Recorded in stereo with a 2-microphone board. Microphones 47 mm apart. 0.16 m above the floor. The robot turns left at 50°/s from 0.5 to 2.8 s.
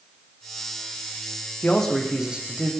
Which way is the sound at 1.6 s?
20° left.